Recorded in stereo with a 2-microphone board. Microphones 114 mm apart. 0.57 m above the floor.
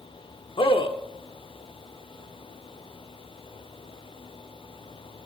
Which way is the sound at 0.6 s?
50° left (ahead or behind).